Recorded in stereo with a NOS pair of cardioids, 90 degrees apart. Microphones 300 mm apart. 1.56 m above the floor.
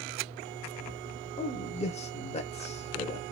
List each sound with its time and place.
1.4 s a man speaking: 20° left, 1.1 m